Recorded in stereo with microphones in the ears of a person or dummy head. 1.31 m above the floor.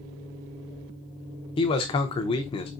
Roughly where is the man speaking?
Left.